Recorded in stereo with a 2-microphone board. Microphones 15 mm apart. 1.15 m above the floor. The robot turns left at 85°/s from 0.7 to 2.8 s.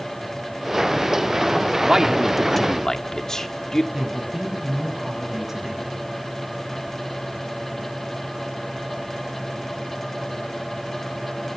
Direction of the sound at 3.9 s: 25° right (ahead or behind).